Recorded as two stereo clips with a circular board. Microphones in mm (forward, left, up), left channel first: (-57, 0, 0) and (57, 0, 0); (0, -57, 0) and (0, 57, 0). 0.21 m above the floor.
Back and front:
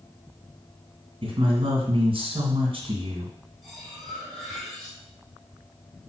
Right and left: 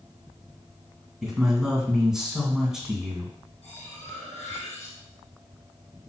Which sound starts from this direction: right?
Cutlery clinking, at 3.6 s.